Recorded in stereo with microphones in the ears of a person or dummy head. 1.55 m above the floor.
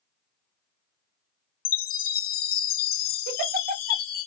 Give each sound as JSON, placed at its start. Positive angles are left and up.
{"t": 1.6, "sound": "a chime", "side_deg": 50, "distance_m": 1.3}
{"t": 3.3, "sound": "a giggle", "side_deg": -50, "distance_m": 1.2}